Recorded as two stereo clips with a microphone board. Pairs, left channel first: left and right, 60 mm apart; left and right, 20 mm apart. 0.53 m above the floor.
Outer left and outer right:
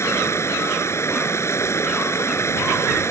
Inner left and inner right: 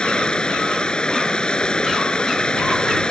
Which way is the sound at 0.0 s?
50° left (ahead or behind).